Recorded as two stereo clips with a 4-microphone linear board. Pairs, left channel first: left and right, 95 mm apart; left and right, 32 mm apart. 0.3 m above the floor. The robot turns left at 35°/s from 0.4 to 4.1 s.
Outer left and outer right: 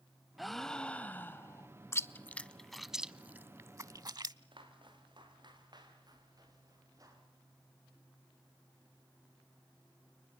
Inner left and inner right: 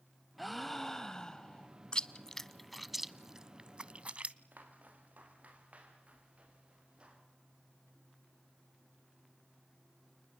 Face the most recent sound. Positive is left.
turn(degrees=-35)  # may be behind; listen again after turning